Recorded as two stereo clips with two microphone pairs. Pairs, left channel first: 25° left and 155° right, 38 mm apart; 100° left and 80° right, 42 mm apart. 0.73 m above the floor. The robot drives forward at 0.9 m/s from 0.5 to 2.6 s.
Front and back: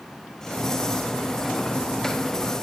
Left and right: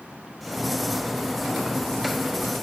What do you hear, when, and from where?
Only background noise.